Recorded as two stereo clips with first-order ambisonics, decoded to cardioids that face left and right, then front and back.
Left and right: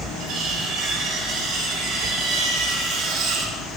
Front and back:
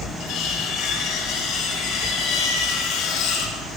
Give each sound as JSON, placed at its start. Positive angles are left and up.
{"t": 0.2, "sound": "cutlery clinking", "azimuth_deg": -45, "distance_m": 5.0}